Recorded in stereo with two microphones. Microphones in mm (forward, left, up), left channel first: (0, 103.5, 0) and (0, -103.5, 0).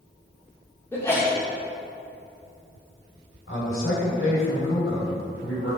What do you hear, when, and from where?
0.9 s a sneeze: 10° left (ahead or behind), 2 m
3.5 s a man speaking: 80° left, 2 m